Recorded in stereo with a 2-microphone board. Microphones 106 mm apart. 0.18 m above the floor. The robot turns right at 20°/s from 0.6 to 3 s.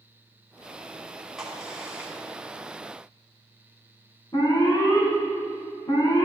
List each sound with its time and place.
1.4 s a crack: 5° right (ahead or behind), 1.8 m; by 2.1 s 10° right (ahead or behind), 1.8 m
4.3 s an alarm: 40° left (ahead or behind), 1.9 m